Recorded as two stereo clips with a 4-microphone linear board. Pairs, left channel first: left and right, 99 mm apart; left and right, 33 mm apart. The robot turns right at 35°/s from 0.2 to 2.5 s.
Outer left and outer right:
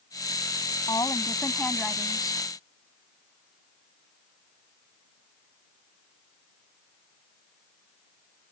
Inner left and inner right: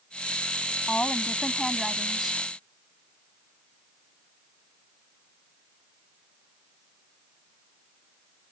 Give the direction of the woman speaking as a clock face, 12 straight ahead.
7 o'clock.